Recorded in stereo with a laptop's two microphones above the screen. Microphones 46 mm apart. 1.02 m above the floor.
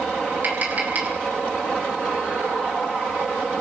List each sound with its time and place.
0.4 s tapping: 40° right (ahead or behind), 9.5 m